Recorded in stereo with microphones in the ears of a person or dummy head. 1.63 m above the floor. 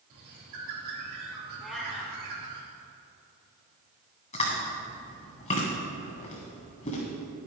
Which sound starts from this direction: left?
Chewing, at 4.3 s.